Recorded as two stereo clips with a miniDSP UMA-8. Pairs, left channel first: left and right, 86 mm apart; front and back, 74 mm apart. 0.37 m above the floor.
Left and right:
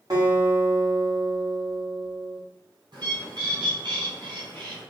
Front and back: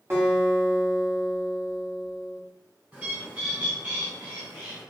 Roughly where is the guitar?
Behind right.